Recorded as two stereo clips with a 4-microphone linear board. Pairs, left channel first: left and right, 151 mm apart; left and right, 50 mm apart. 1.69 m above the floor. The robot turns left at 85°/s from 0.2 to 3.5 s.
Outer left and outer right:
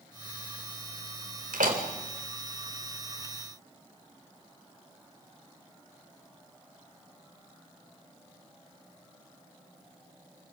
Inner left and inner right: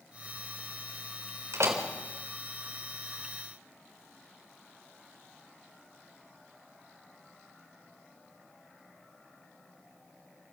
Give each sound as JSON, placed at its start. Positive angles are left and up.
{"t": 1.5, "sound": "a door slam", "side_deg": -70, "distance_m": 3.5}